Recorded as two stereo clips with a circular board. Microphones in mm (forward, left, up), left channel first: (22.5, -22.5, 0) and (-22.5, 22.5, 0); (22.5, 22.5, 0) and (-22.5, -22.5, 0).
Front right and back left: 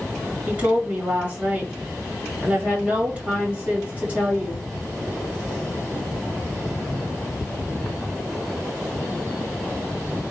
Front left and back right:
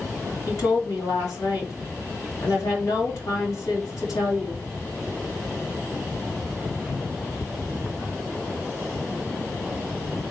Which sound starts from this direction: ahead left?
A woman speaking, at 0.5 s.